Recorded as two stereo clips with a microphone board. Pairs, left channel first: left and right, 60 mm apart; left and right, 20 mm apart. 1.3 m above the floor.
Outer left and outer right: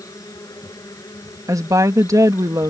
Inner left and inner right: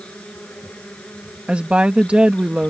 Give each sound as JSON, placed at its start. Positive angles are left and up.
{"t": 0.0, "sound": "an insect", "side_deg": 75}
{"t": 1.5, "sound": "a woman speaking", "side_deg": -65}